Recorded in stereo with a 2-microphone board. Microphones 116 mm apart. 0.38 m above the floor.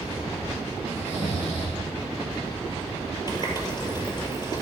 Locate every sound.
0.9 s snoring: 70° left (ahead or behind), 5.5 m
3.3 s a running tap: 40° left (ahead or behind), 5 m